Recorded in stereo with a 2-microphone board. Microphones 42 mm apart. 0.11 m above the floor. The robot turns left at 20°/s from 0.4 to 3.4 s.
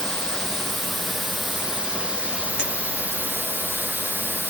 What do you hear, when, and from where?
0.0 s running water: 15° left, 0.9 m; by 4.5 s 45° right, 0.9 m
2.6 s a clink: 20° right (ahead or behind), 1.2 m